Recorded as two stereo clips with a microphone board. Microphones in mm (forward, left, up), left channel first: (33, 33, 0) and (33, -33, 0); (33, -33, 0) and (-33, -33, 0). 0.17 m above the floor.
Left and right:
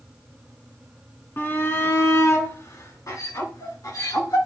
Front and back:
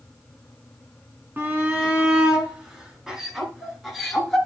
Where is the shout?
135° left, 1.9 m; by 4.4 s 90° left, 2.5 m.